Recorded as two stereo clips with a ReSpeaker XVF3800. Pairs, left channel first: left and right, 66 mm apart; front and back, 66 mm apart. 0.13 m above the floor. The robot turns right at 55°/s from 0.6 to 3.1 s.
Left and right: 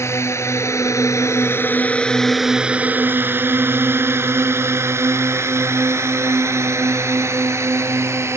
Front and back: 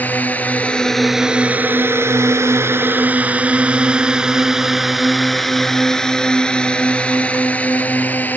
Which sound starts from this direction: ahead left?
A drone, at 0.0 s.